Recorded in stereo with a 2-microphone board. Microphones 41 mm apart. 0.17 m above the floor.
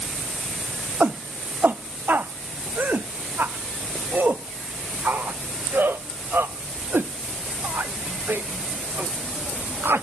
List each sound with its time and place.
1.0 s a shout: 45° right (ahead or behind); by 10.0 s 65° right (ahead or behind)